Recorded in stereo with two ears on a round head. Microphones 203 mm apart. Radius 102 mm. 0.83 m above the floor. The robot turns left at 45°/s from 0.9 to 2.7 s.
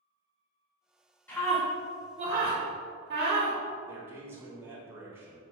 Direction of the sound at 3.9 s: 10° right (ahead or behind).